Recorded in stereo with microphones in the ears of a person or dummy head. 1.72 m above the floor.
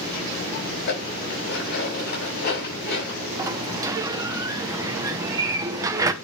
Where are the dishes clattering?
60° left (ahead or behind), 6.5 m.